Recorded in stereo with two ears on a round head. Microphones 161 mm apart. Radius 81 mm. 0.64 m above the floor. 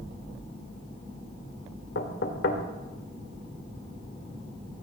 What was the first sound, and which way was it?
Knocking, 65° left (ahead or behind).